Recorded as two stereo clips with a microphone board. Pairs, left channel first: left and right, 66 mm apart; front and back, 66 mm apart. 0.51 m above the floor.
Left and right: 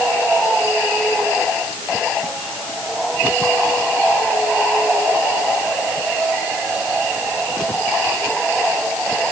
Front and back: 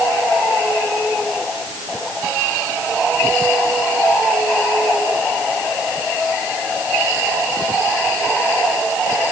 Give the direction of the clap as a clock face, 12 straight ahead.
No clap in this recording.